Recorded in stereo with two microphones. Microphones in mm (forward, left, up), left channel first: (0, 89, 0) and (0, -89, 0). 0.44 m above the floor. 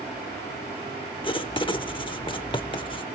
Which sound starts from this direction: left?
Writing, at 1.2 s.